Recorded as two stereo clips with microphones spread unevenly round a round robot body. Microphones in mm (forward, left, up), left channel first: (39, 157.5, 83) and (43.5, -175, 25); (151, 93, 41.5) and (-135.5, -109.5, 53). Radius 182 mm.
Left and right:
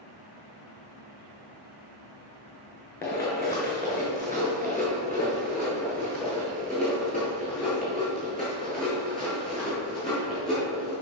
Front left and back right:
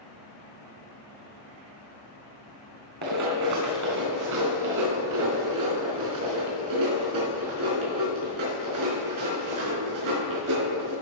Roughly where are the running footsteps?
Behind.